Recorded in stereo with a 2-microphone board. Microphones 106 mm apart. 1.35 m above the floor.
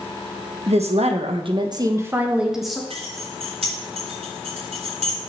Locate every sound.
0.7 s a woman speaking: 85° right, 1.4 m; by 2.8 s centre (ahead or behind), 1.5 m
2.9 s keys jangling: 85° right, 3.5 m